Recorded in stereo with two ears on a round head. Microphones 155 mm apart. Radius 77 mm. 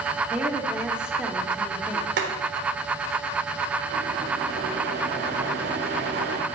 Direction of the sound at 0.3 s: 5° right (ahead or behind).